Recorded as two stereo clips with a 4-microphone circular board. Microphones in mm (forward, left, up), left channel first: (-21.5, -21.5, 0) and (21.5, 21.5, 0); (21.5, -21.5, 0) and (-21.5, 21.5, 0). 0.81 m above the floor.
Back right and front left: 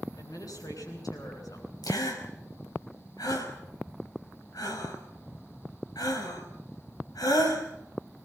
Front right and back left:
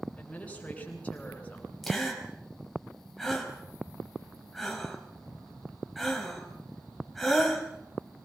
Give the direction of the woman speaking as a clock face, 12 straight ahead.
4 o'clock.